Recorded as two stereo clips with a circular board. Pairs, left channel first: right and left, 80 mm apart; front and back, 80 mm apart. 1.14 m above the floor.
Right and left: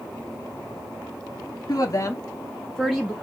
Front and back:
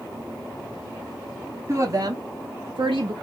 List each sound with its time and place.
1.7 s a woman speaking: 130° right, 1.3 m; by 3.1 s 170° left, 1.1 m